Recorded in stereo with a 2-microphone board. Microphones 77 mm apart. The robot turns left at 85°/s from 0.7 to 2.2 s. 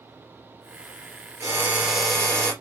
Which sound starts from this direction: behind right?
A drill, at 1.4 s.